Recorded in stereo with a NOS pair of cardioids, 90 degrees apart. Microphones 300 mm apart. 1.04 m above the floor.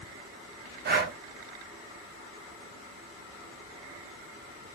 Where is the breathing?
35° right, 0.7 m.